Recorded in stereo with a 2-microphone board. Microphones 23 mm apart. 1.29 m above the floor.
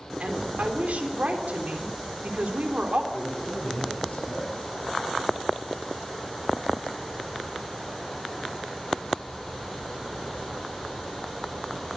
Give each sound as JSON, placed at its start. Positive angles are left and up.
{"t": 0.2, "sound": "a woman speaking", "side_deg": -80, "distance_m": 3.5}
{"t": 3.1, "sound": "a man speaking", "side_deg": 75, "distance_m": 9.0}